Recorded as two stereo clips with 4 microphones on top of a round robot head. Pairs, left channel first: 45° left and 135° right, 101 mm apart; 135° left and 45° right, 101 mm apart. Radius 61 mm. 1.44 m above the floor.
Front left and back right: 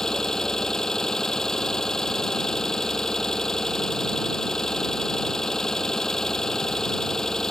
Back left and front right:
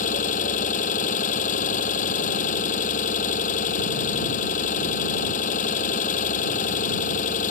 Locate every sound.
0.0 s an engine running: 130° left